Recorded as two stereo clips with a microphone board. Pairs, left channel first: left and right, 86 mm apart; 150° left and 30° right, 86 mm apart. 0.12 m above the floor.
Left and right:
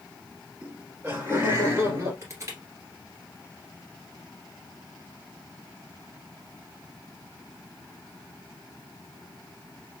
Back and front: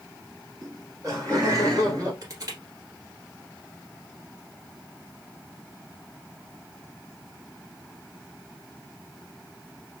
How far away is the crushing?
About 1.6 m.